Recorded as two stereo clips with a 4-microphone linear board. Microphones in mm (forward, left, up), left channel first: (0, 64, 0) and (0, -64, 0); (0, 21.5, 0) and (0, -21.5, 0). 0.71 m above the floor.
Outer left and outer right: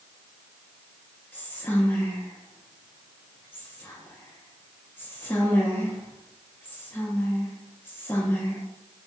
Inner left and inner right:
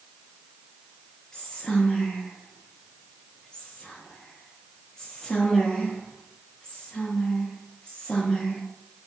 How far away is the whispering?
About 0.7 m.